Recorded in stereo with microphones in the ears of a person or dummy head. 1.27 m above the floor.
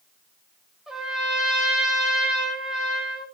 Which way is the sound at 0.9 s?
5° right (ahead or behind).